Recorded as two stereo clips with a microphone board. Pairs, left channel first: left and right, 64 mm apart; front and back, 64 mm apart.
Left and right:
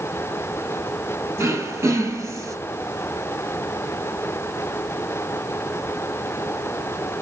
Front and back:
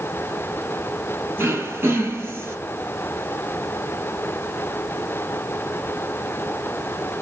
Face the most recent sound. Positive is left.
turn(degrees=-130)